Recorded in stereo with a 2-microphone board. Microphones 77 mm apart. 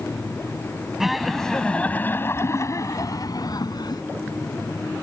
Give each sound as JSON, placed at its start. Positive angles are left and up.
{"t": 1.0, "sound": "laughter", "side_deg": -5}